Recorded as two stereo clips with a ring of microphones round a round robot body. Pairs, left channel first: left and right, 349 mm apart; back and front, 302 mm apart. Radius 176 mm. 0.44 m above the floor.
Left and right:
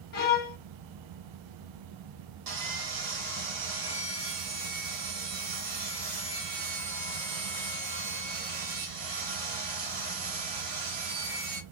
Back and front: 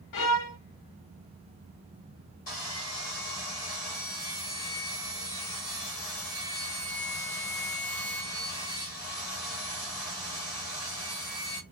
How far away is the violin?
About 0.8 m.